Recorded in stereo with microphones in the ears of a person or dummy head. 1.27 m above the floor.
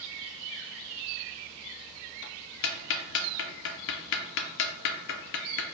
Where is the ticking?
70° left (ahead or behind), 0.5 m.